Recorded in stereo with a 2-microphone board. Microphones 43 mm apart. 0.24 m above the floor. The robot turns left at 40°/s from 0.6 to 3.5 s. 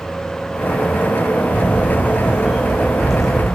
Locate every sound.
1.5 s a camera shutter: 120° right, 2 m; by 3.5 s 165° left, 2 m